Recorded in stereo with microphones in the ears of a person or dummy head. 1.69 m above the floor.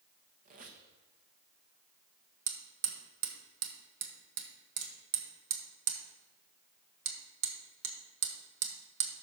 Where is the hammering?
70° right (ahead or behind), 1.7 m.